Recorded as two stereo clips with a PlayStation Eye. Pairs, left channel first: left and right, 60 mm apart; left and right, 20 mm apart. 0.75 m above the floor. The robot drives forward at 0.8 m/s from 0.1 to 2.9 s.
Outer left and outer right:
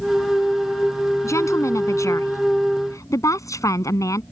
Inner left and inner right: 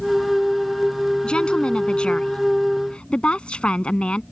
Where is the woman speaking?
55° left (ahead or behind); by 4.2 s 65° left (ahead or behind).